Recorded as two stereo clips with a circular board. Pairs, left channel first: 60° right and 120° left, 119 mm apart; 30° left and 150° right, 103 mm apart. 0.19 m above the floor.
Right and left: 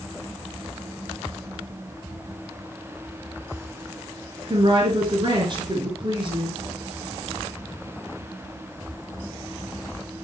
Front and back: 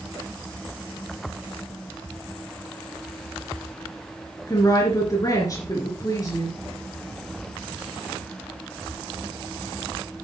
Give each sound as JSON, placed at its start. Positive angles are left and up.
{"t": 4.5, "sound": "a woman speaking", "azimuth_deg": 80, "distance_m": 3.0}